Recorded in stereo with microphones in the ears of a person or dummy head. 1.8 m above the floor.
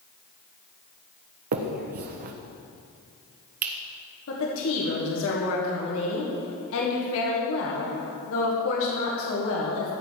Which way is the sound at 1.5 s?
45° right (ahead or behind).